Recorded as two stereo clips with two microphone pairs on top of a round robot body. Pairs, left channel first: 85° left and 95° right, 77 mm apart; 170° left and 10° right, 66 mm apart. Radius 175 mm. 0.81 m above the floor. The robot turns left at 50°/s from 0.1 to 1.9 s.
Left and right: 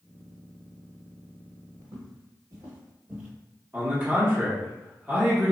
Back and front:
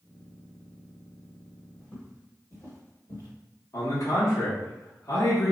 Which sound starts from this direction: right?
Footsteps, at 1.8 s.